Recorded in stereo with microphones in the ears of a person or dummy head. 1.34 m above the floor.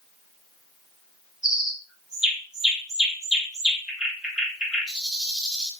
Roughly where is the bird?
Centre.